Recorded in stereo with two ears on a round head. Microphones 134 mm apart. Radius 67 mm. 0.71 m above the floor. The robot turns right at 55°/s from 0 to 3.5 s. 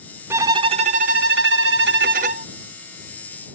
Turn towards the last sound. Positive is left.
turn(degrees=15)